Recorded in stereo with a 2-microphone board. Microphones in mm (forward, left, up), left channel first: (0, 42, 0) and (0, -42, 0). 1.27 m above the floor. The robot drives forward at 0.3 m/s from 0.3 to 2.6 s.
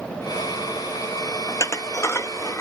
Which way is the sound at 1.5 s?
40° left (ahead or behind).